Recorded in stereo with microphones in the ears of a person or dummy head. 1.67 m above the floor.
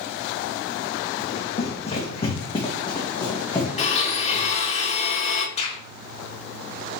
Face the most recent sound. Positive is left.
turn(degrees=35)  # may be behind; listen again after turning